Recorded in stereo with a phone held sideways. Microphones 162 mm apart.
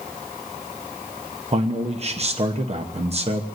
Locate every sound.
1.5 s a man speaking: 40° right (ahead or behind), 1.0 m